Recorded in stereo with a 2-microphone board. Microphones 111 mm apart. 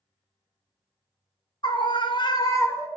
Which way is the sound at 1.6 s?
45° left (ahead or behind).